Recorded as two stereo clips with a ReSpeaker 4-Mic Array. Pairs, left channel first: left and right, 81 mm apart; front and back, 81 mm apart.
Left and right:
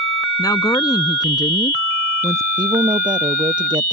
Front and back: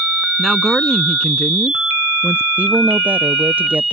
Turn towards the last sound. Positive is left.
turn(degrees=-110)